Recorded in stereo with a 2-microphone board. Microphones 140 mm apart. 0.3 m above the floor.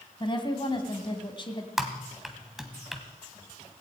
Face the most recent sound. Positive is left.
turn(degrees=0)  # may be behind; listen again after turning